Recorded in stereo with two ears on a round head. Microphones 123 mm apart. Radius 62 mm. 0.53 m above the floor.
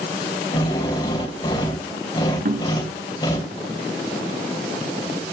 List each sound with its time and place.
0.5 s a drill: 35° left (ahead or behind), 3 m
2.5 s knocking: 70° right (ahead or behind), 3 m